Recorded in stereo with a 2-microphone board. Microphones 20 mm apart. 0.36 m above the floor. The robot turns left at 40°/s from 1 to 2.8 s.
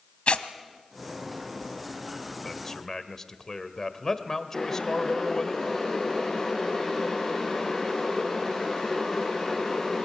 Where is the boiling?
15° left (ahead or behind), 7 m.